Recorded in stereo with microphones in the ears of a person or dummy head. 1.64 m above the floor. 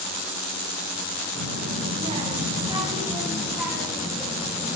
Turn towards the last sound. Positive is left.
turn(degrees=0)  # may be behind; listen again after turning